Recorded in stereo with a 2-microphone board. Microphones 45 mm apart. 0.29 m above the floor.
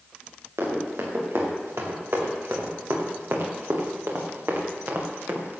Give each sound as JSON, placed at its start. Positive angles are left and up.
{"t": 0.6, "sound": "running footsteps", "side_deg": -85, "distance_m": 5.0}